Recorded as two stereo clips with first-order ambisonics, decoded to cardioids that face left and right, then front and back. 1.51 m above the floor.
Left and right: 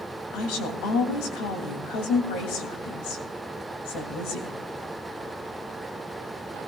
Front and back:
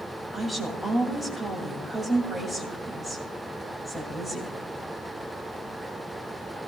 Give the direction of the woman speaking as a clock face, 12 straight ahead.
9 o'clock.